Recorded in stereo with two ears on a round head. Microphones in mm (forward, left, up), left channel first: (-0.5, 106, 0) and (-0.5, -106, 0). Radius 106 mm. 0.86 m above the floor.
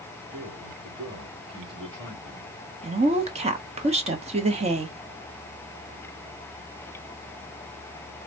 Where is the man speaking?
25° right (ahead or behind), 2.5 m.